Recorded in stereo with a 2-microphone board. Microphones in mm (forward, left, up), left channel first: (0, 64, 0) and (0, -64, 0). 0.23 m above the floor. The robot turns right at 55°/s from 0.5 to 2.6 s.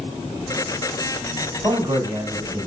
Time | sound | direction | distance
1.6 | a man speaking | 10° right (ahead or behind) | 1.3 m